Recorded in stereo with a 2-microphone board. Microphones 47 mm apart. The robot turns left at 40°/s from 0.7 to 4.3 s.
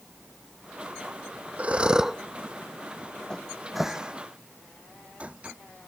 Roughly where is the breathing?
Right.